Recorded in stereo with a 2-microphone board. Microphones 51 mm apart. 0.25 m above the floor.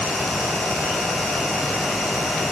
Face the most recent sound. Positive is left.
No sound to turn to.